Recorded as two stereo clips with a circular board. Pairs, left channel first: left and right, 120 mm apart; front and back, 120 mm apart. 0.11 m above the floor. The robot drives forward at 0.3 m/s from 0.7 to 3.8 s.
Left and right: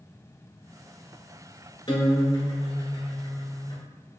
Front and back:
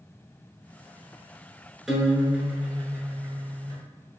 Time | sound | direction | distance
1.9 | a guitar | 95° left | 1.1 m